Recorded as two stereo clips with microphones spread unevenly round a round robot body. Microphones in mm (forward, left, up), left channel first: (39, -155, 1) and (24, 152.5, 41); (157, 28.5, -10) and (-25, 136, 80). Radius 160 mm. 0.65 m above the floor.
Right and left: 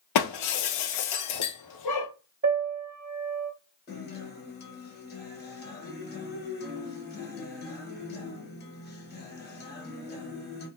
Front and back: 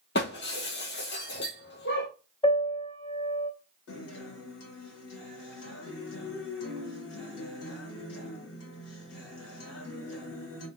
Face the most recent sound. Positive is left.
turn(degrees=-25)